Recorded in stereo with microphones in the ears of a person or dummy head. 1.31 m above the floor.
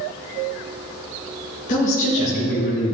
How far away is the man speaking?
About 2.0 m.